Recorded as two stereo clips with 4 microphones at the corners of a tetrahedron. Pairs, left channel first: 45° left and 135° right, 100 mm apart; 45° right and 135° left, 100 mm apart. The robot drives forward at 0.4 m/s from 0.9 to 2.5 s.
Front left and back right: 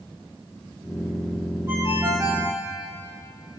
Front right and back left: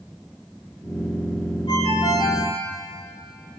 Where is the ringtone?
80° right, 7 m.